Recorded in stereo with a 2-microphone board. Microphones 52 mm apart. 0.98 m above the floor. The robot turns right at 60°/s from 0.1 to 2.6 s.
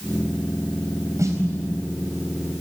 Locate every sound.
1.2 s a snare drum: 80° right, 4.5 m; by 1.4 s 70° right (ahead or behind), 4.5 m